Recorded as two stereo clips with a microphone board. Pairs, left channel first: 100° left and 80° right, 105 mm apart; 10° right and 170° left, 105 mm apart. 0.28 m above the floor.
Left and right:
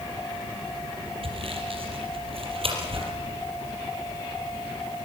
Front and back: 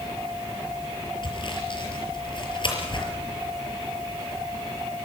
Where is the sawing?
50° right, 5.5 m.